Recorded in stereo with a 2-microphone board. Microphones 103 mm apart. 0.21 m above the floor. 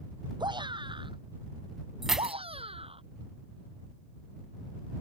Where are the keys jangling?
5° right (ahead or behind).